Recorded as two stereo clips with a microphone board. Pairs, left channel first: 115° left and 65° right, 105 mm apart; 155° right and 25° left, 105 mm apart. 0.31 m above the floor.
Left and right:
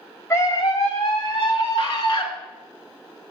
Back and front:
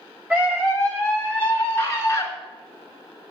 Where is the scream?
90° left, 1.1 m; by 2.3 s 140° left, 2.5 m.